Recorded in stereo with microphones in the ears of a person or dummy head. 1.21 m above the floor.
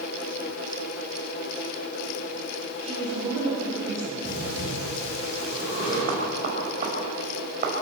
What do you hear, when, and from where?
2.8 s a woman speaking: 15° right (ahead or behind), 6.5 m; by 4.2 s 10° right (ahead or behind), 8 m
4.2 s breathing: 40° left (ahead or behind), 10 m
6.1 s knocking: 45° right (ahead or behind), 5.5 m